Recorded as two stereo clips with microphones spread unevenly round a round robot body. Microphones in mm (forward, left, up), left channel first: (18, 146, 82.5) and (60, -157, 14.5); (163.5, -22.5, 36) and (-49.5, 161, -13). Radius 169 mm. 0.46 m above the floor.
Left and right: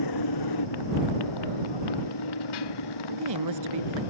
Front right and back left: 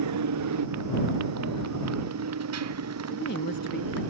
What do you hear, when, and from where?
0.0 s a motorcycle: 120° left; by 4.1 s 105° left
3.1 s a woman speaking: 100° right